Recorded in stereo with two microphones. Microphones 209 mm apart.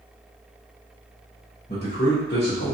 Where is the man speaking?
50° left (ahead or behind), 0.9 m; by 2.7 s 45° left (ahead or behind), 0.7 m.